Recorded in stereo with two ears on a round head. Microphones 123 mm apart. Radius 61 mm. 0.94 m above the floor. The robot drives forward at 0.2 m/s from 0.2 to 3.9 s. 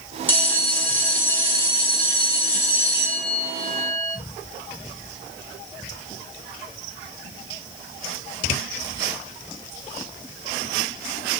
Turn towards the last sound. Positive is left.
turn(degrees=15)  # may be behind; listen again after turning